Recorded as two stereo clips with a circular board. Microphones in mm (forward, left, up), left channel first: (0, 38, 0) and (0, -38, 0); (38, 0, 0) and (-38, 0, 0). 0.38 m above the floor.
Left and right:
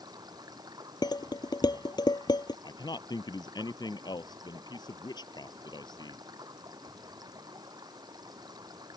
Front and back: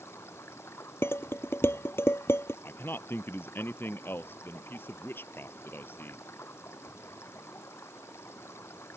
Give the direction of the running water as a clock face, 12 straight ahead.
2 o'clock.